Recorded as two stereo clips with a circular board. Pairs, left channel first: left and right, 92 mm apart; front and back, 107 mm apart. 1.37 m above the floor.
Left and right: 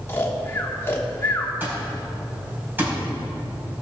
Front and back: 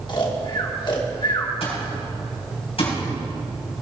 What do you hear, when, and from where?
0.1 s snoring: 30° left, 1.4 m
1.6 s an alarm clock: 20° right, 4 m